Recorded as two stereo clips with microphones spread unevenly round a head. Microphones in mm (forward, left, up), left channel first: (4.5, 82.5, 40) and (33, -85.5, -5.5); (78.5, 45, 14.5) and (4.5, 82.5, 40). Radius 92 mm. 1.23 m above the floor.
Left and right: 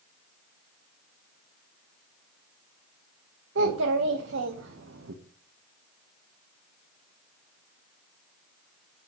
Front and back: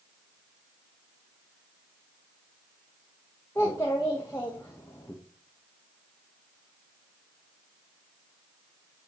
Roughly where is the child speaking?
Right.